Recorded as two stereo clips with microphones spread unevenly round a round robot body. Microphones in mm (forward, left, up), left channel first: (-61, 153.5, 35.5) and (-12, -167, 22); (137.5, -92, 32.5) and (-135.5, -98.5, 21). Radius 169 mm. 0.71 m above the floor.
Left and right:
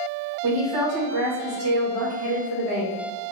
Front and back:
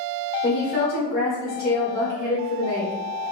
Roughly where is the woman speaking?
Ahead right.